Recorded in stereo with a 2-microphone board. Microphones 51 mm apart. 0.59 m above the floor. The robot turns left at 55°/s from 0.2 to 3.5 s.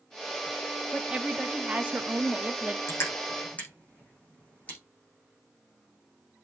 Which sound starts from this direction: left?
Crushing, at 2.9 s.